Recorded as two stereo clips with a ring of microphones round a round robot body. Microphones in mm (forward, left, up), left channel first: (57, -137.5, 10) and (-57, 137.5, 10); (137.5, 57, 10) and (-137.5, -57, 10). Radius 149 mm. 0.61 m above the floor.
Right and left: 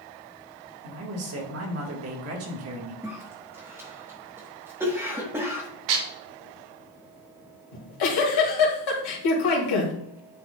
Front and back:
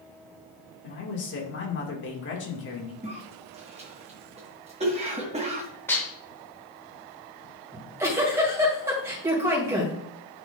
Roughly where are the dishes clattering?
Left.